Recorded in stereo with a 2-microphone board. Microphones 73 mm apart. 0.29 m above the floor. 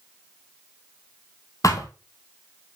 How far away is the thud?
About 1.4 m.